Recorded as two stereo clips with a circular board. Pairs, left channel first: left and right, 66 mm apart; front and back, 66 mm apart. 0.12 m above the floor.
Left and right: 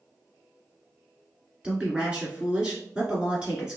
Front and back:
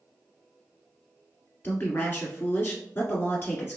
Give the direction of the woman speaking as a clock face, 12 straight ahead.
1 o'clock.